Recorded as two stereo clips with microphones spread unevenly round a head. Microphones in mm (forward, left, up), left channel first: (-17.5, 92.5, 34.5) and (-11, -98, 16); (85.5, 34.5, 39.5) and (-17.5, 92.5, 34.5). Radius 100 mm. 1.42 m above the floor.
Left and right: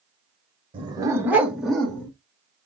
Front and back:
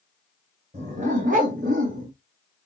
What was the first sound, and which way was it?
A dog barking, 150° right.